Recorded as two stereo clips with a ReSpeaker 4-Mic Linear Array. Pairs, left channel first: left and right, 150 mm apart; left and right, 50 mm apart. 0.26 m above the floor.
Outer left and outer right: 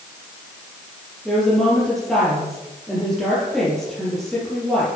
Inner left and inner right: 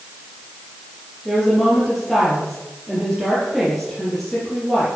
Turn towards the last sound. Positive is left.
turn(degrees=0)  # may be behind; listen again after turning